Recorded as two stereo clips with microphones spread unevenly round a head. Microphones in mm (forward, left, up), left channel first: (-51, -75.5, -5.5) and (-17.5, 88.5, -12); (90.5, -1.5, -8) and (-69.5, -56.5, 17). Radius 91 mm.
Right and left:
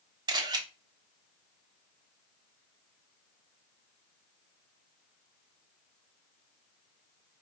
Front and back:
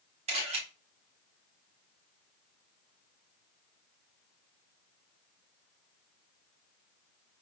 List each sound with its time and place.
0.3 s a camera shutter: 145° left, 1.1 m